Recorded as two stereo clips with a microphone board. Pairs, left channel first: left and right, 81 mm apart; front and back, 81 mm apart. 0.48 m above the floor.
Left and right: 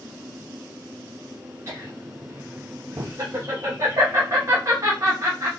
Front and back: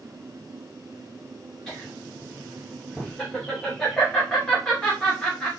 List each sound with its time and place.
1.7 s laughter: 80° right, 0.9 m